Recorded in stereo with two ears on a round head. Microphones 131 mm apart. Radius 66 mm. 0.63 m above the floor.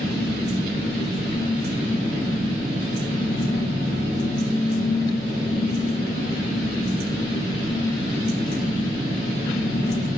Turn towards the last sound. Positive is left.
turn(degrees=-50)  # may be behind; listen again after turning